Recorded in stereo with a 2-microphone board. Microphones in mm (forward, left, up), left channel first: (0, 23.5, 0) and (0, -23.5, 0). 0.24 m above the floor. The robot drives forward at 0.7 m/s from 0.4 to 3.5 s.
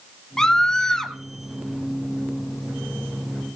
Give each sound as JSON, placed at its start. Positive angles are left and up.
{"t": 0.4, "sound": "a scream", "side_deg": 10, "distance_m": 1.2}